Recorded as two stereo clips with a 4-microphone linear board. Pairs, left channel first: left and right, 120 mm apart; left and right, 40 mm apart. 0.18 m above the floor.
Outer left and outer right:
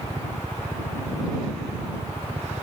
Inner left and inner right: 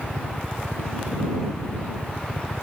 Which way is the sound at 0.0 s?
Centre (ahead or behind).